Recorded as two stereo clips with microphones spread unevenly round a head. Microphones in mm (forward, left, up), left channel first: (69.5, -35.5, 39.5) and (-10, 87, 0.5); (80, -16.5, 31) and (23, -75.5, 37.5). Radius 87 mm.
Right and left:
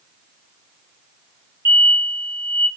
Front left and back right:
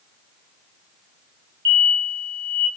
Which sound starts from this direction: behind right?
An explosion, at 1.6 s.